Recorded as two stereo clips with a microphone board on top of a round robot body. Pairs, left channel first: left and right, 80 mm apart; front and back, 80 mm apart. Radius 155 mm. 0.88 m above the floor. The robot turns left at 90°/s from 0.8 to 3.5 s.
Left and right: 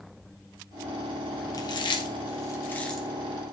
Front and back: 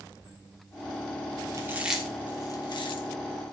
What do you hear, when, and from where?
1.5 s chewing: 130° left, 3 m; by 3.1 s 5° right, 3 m